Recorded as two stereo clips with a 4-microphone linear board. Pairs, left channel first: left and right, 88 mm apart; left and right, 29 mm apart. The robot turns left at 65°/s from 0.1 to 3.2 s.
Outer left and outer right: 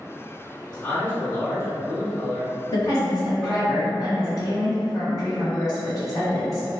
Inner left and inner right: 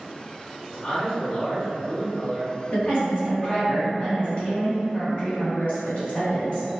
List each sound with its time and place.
0.7 s a man speaking: 170° left, 1.1 m; by 3.7 s 5° left, 1.1 m
2.7 s a woman speaking: 75° left, 1.4 m; by 6.7 s 45° left, 1.4 m